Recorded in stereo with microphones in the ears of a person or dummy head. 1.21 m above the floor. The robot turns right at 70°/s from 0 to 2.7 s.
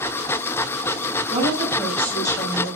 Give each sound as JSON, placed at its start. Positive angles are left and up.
{"t": 1.3, "sound": "a woman speaking", "azimuth_deg": -40, "distance_m": 6.5}